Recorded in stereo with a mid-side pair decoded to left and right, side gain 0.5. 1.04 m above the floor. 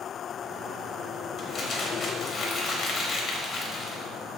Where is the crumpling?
55° left, 0.9 m.